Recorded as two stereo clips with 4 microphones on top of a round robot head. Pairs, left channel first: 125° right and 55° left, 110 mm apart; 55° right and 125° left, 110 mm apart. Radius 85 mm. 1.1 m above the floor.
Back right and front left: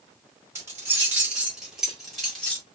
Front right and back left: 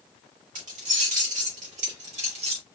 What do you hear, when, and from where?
0.6 s keys jangling: 125° left, 2.5 m; by 2.6 s 155° left, 2 m